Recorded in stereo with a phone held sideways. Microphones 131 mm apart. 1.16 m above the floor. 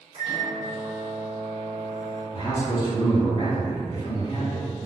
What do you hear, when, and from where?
0.1 s a microwave: 55° right (ahead or behind), 1.7 m
2.3 s a man speaking: 35° left (ahead or behind), 1.9 m